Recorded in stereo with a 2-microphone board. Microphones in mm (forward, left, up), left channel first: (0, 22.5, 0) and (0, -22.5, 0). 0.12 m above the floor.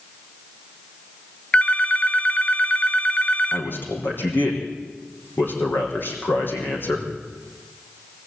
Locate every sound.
1.5 s a phone ringing: 30° left (ahead or behind), 1.1 m
3.5 s a man speaking: 50° left (ahead or behind), 5 m